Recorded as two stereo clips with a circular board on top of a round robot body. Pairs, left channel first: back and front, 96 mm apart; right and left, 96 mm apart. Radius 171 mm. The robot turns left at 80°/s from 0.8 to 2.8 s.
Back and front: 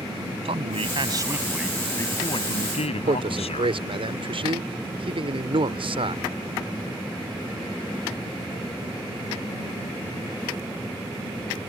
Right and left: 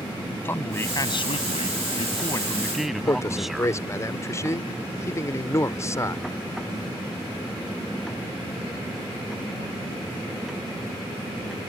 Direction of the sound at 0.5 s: 20° right.